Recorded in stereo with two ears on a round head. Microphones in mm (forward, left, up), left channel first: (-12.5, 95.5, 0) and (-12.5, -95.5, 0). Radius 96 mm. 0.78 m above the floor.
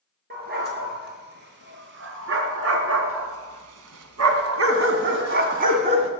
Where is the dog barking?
50° right (ahead or behind), 5 m; by 6.1 s 30° right (ahead or behind), 2.5 m.